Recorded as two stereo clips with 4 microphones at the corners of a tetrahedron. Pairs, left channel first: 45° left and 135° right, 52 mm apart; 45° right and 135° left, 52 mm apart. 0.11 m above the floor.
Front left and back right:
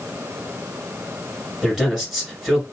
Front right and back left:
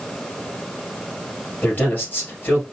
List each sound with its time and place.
1.6 s a man speaking: 55° right, 2.0 m